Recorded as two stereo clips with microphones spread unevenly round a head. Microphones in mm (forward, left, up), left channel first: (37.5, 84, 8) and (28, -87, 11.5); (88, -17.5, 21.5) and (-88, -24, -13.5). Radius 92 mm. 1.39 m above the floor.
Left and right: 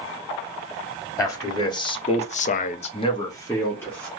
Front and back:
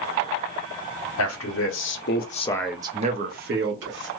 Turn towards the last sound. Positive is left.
turn(degrees=170)